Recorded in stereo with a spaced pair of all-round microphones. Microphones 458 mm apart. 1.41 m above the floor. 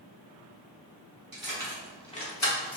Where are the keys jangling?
50° right (ahead or behind), 1.0 m; by 2.8 s 45° left (ahead or behind), 1.1 m.